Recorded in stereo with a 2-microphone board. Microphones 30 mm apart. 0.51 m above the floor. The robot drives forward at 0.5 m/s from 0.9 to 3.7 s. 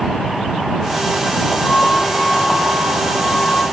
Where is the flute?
65° left (ahead or behind), 7 m; by 3.6 s 55° left (ahead or behind), 7.5 m.